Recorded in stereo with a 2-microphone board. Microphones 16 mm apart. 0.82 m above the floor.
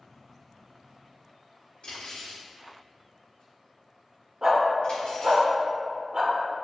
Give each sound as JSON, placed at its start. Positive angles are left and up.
{"t": 1.8, "sound": "cutlery clinking", "side_deg": 85, "distance_m": 1.5}
{"t": 4.4, "sound": "a dog barking", "side_deg": -35, "distance_m": 0.5}